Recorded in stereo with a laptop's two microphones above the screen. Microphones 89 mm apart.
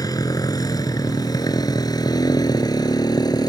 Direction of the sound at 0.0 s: 45° left (ahead or behind).